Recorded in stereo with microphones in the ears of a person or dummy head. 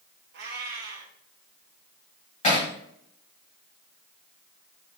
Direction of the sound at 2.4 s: 40° left (ahead or behind).